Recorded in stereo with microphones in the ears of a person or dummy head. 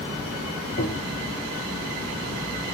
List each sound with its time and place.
0.8 s tapping: 50° left (ahead or behind), 0.7 m